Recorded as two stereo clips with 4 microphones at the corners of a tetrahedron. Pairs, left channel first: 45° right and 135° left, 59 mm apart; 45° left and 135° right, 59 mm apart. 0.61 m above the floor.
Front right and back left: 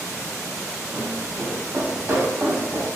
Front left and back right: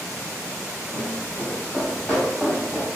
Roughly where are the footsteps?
Behind.